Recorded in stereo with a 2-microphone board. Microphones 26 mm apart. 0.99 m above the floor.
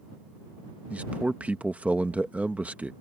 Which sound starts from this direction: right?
A man speaking, at 0.9 s.